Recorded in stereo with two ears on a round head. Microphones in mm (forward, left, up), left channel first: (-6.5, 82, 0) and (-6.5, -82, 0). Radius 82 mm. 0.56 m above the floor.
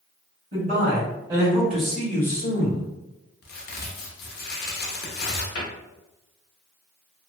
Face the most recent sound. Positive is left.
turn(degrees=85)